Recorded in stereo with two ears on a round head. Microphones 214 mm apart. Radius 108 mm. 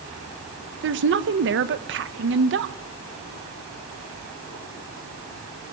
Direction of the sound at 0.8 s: 55° right (ahead or behind).